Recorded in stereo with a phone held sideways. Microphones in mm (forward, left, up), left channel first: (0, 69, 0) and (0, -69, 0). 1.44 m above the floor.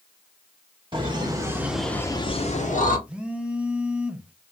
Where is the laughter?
40° right (ahead or behind), 1.8 m; by 3.0 s 70° left (ahead or behind), 1.6 m.